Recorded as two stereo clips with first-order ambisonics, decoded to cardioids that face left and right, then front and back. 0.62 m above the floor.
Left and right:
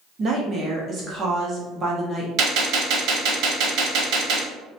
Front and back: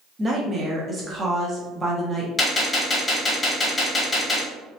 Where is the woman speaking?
115° right, 0.6 m.